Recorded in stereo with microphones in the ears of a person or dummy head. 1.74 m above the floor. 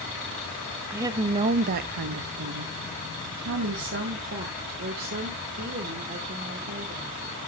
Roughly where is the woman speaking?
Centre.